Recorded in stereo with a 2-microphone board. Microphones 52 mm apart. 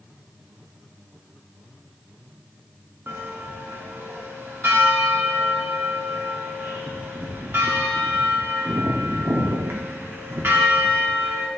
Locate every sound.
3.1 s a bell: 50° right (ahead or behind), 1.2 m